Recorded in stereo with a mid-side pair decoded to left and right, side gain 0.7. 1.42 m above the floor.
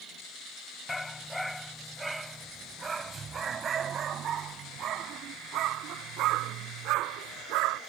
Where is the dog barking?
15° left; by 7.8 s 65° right.